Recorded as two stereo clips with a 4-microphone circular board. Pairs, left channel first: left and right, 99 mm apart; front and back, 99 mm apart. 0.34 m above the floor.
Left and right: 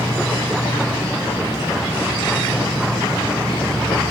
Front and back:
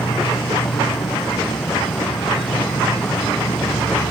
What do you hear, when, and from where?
0.0 s an insect: 35° left